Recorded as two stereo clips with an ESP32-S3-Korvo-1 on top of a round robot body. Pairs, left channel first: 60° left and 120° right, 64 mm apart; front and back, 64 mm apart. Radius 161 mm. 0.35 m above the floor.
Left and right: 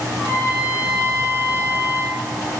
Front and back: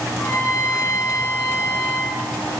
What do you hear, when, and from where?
0.2 s a trumpet: 20° left, 6.5 m